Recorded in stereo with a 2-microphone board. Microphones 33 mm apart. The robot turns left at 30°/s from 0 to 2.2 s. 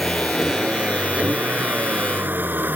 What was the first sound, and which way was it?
A vehicle, centre (ahead or behind).